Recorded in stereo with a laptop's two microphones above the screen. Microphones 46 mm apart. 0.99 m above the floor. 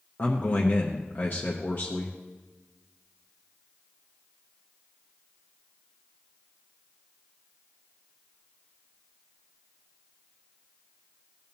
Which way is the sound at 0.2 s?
35° left (ahead or behind).